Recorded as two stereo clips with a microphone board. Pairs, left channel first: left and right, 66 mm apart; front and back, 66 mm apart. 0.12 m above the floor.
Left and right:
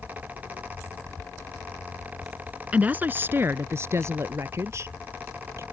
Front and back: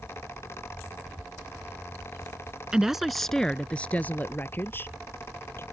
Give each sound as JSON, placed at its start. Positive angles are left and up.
{"t": 2.7, "sound": "a woman speaking", "azimuth_deg": -120}